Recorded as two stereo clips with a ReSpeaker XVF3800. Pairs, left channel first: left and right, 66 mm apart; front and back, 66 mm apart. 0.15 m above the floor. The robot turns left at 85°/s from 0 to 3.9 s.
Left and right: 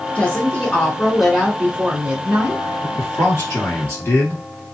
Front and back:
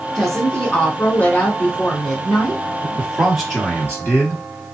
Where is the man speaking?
140° left, 1.8 m; by 4.4 s 45° left, 1.8 m.